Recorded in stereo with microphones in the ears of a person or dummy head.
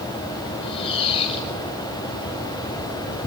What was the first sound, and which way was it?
A squeak, 30° left (ahead or behind).